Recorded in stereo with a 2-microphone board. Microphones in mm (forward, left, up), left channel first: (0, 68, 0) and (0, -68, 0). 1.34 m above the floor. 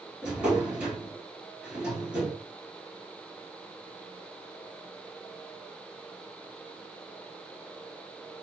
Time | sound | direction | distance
0.2 | a drawer | 10° right (ahead or behind) | 1.7 m